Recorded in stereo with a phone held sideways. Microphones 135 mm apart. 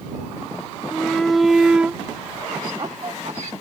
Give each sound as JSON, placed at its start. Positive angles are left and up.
{"t": 0.9, "sound": "a shout", "side_deg": 5}